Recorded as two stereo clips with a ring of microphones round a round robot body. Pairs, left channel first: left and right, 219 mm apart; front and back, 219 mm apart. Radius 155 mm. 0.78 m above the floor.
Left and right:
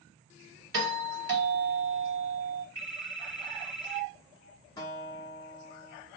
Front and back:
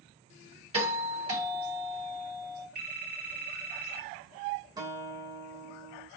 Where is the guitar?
135° left, 0.9 m.